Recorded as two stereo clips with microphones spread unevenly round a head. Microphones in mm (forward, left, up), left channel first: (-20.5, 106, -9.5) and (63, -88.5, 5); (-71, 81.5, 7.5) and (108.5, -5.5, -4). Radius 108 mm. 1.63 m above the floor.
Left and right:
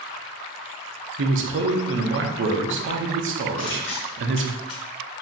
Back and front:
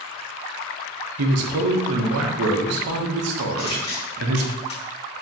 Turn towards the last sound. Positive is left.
turn(degrees=95)